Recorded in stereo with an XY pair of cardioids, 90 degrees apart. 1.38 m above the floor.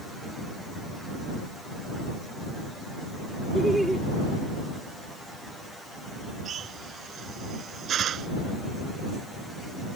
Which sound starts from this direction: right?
A drill, at 6.5 s.